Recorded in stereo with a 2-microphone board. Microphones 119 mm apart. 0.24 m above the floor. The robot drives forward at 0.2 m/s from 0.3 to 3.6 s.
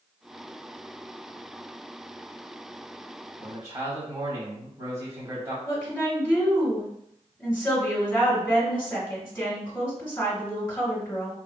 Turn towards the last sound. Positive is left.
turn(degrees=20)  # may be behind; listen again after turning